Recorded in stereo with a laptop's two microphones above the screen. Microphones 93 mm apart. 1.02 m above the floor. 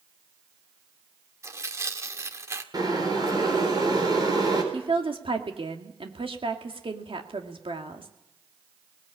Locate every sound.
1.4 s tearing paper: 30° right (ahead or behind), 1.6 m
2.7 s boiling: 50° right (ahead or behind), 4.5 m
4.7 s a woman speaking: 80° right, 2 m